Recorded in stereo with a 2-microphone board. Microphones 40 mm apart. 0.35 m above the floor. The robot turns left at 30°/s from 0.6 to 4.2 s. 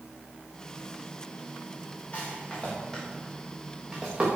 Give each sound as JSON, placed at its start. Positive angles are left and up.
{"t": 2.1, "sound": "a rattle", "side_deg": 30, "distance_m": 7.5}